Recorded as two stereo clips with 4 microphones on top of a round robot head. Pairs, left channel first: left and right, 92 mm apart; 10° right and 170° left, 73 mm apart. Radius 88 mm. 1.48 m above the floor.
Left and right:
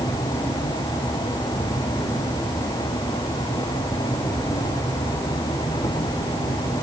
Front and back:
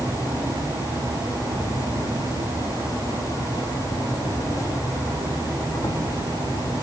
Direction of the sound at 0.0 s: 30° left.